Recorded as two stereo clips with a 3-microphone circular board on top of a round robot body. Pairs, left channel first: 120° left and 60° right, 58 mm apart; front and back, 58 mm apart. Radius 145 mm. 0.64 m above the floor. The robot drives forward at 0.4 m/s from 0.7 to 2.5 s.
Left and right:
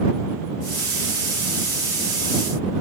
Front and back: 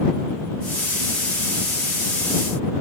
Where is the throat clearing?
I don't hear throat clearing.